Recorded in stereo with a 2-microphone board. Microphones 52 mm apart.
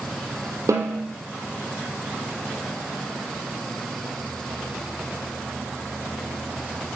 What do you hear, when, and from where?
0.7 s a snare drum: 80° right, 1.4 m